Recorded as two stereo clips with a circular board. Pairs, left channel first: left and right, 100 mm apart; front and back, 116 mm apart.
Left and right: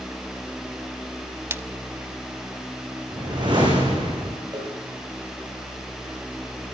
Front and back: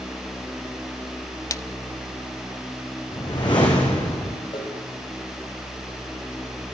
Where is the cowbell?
45° right, 5 m.